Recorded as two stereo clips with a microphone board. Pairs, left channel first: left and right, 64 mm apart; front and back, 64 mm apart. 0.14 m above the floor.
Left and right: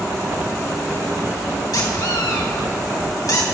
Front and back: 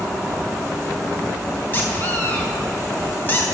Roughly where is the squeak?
Ahead left.